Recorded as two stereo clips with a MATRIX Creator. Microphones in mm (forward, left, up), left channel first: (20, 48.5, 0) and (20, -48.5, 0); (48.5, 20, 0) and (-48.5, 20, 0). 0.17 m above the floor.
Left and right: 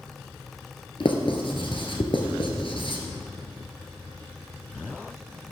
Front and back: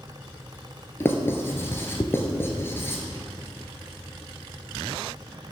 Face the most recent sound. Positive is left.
turn(degrees=65)